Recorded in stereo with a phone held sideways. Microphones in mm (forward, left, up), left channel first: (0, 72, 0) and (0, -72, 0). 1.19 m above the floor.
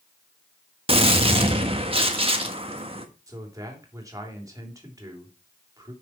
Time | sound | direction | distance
0.9 | a gunshot | 40° right (ahead or behind) | 1.4 m
3.3 | a man speaking | 25° right (ahead or behind) | 3 m